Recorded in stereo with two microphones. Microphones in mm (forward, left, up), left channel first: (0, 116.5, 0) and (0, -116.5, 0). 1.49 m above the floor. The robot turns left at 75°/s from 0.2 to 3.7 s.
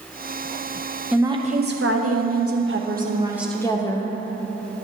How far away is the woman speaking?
About 0.9 m.